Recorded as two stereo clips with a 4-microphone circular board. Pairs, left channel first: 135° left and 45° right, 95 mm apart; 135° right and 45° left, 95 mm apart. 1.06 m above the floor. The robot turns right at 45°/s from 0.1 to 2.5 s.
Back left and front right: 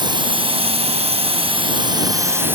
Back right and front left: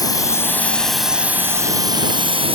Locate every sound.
0.0 s a drone: 85° right; by 2.6 s 25° left